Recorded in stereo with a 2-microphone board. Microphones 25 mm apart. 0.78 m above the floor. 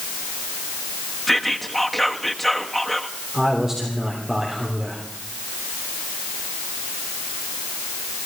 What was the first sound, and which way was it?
Whispering, 5° left (ahead or behind).